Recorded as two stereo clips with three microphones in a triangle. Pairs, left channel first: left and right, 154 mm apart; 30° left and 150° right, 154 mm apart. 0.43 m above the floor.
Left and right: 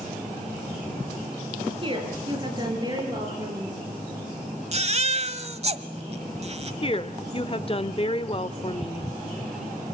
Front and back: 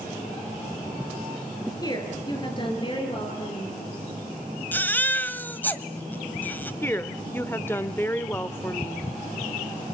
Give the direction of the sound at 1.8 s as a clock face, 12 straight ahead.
1 o'clock.